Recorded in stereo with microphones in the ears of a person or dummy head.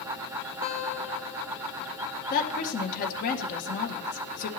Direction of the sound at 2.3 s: 45° left (ahead or behind).